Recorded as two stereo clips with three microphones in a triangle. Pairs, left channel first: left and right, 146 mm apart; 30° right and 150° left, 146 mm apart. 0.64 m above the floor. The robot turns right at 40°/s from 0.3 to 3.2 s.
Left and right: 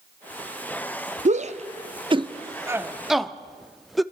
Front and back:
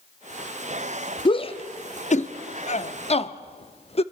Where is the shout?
80° right, 0.8 m; by 4.0 s straight ahead, 0.8 m.